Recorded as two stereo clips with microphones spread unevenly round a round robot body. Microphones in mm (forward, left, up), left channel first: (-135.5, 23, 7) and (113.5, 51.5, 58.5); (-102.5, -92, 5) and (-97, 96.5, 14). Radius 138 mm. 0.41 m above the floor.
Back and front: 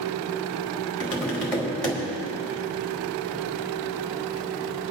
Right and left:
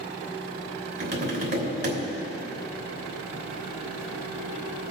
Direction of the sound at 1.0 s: 105° left.